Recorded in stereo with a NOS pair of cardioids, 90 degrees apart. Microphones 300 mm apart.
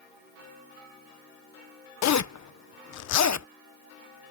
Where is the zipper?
70° left.